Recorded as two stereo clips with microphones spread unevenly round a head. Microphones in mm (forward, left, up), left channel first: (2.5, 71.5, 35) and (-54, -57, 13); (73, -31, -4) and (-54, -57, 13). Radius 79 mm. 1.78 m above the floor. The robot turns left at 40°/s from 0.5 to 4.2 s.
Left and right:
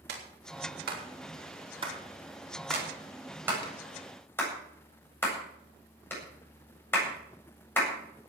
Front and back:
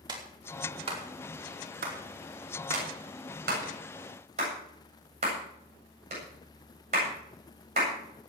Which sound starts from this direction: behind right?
A clap, at 0.1 s.